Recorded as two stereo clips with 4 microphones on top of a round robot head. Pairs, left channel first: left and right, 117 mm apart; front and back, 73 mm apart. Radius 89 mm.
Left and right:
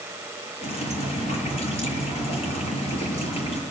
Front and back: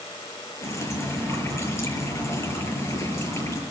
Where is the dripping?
55° left, 8 m.